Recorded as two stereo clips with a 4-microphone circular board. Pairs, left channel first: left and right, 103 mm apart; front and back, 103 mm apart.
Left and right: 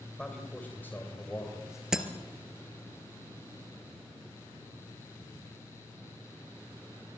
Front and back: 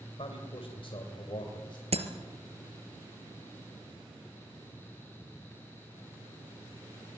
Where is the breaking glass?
175° right, 2.5 m.